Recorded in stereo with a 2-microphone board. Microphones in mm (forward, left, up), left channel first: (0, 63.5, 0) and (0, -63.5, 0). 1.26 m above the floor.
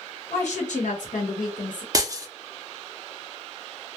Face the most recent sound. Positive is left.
turn(degrees=-30)  # may be behind; listen again after turning